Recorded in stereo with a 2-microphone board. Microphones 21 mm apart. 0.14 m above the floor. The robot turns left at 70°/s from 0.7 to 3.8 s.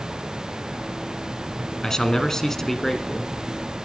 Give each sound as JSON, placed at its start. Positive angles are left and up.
{"t": 1.8, "sound": "a man speaking", "side_deg": 25, "distance_m": 1.3}